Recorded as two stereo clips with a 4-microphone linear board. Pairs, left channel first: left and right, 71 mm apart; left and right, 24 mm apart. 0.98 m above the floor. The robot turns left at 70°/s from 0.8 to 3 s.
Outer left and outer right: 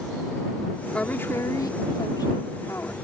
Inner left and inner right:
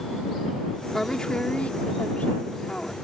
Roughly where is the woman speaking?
Behind.